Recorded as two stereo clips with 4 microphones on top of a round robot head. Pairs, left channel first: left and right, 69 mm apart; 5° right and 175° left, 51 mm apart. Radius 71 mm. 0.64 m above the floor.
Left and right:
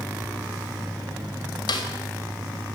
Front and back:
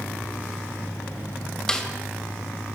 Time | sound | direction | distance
1.7 | a snare drum | 70° left | 3 m